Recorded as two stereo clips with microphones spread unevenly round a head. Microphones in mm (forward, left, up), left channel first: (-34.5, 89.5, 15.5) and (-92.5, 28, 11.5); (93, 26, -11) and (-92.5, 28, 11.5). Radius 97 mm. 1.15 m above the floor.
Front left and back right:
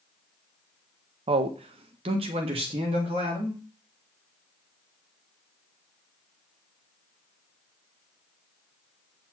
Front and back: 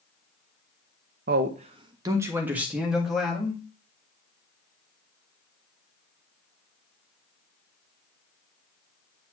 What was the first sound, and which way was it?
A man speaking, 135° right.